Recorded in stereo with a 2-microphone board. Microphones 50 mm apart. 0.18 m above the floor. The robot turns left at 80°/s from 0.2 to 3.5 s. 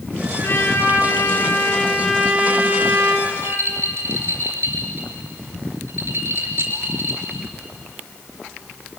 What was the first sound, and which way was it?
A trumpet, 125° left.